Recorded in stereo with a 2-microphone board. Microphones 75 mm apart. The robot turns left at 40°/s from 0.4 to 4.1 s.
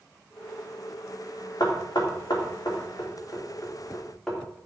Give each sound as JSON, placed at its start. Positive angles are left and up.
{"t": 1.6, "sound": "knocking", "side_deg": 70, "distance_m": 3.0}